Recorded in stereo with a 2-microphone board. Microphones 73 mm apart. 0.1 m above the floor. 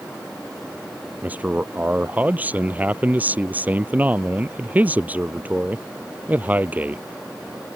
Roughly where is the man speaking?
Right.